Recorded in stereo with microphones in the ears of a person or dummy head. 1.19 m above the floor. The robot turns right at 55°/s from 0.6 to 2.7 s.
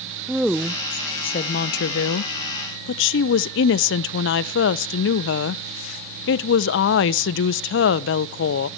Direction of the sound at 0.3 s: Straight ahead.